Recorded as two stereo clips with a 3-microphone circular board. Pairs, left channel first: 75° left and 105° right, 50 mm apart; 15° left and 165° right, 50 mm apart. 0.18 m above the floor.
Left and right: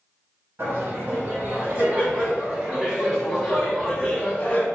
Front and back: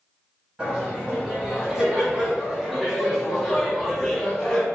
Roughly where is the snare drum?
I don't hear a snare drum.